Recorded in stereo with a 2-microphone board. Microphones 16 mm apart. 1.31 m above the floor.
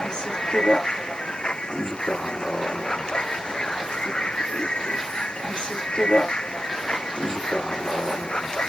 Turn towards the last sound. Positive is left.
turn(degrees=55)  # may be behind; listen again after turning